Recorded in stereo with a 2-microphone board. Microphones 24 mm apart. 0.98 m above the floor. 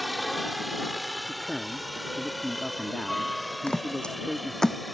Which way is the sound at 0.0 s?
Centre (ahead or behind).